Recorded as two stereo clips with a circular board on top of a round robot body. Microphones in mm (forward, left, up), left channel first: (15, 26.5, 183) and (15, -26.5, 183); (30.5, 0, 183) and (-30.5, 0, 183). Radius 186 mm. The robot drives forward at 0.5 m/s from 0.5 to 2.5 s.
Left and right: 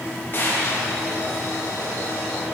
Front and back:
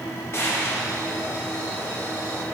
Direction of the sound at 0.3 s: 45° left.